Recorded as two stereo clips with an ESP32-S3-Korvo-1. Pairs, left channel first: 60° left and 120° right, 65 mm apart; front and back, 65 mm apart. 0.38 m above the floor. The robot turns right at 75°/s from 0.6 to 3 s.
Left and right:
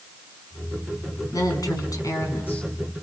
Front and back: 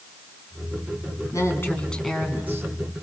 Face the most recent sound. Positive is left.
turn(degrees=155)